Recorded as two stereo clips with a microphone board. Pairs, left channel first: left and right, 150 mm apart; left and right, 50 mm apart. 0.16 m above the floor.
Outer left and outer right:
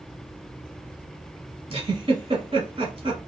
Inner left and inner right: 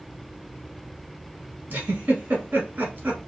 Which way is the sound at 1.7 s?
40° right (ahead or behind).